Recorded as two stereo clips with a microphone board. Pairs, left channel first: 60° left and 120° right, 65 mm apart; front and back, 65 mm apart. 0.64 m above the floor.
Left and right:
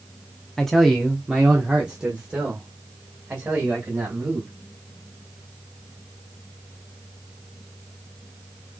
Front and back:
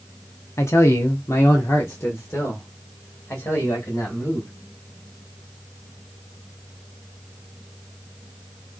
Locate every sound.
0.6 s a man speaking: 20° right, 0.8 m; by 4.5 s 50° right, 3 m